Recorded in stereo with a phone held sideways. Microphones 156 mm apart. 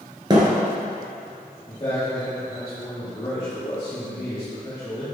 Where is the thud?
30° right (ahead or behind), 1.8 m.